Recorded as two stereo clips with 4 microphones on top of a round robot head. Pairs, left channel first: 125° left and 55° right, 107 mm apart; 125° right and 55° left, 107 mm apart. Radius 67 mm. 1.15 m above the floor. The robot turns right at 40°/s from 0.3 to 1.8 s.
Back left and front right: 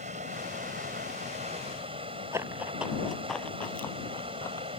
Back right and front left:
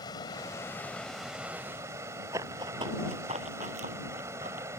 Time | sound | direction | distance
0.0 | running water | 70° right | ?
2.3 | running footsteps | 5° left | ?